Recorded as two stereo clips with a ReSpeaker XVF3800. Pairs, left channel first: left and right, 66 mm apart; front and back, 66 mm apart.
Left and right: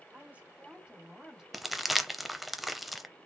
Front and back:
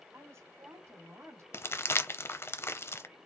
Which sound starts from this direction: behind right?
A woman speaking, at 0.1 s.